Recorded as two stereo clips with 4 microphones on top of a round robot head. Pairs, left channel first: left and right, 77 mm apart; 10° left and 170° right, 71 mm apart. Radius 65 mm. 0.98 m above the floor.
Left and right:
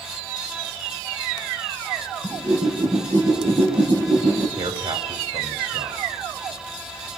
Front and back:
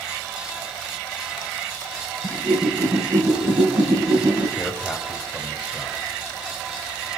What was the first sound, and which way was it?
A whoosh, 135° right.